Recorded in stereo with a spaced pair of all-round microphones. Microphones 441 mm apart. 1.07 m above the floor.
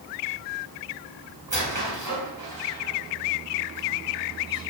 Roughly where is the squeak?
Right.